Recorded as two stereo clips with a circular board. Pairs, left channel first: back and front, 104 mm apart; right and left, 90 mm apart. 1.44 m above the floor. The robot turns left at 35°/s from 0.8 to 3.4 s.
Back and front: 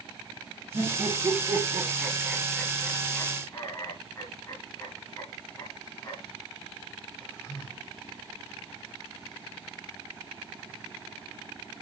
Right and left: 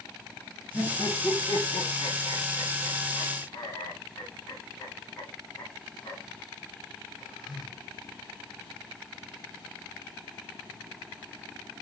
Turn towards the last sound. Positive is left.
turn(degrees=-130)